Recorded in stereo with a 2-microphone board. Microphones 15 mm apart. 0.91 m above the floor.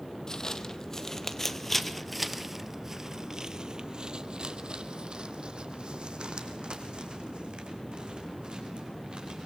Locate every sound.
0.3 s footsteps: 40° left (ahead or behind), 1.6 m; by 9.5 s 70° right (ahead or behind), 4 m